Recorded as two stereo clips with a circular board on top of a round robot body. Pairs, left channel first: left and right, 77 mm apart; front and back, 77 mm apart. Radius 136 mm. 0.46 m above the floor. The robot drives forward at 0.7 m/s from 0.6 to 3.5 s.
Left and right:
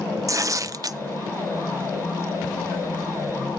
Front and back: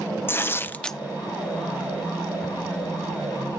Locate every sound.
0.3 s tearing paper: 55° right, 0.6 m; by 1.0 s 90° right, 0.6 m